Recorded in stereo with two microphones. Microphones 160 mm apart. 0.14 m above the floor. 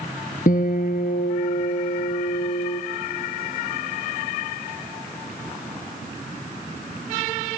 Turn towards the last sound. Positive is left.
turn(degrees=60)  # may be behind; listen again after turning